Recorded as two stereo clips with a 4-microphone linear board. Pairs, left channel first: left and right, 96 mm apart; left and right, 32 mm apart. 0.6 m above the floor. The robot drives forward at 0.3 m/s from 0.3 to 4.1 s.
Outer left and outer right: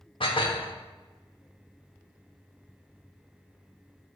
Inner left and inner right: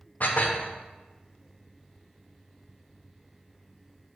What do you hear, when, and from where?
0.2 s dishes clattering: 65° left (ahead or behind), 0.9 m; by 0.7 s 60° left (ahead or behind), 1.0 m